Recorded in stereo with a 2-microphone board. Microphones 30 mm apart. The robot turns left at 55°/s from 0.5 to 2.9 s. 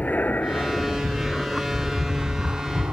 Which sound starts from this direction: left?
An aircraft, at 0.0 s.